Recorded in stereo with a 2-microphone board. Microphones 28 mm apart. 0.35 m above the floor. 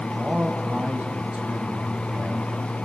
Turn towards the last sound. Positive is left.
turn(degrees=-50)  # may be behind; listen again after turning